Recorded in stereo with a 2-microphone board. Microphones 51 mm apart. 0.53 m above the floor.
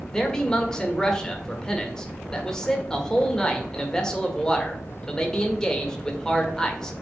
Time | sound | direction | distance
0.1 | a man speaking | 15° left (ahead or behind) | 1.6 m